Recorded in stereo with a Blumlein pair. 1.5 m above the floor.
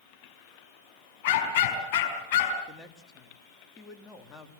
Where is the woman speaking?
15° left, 3 m.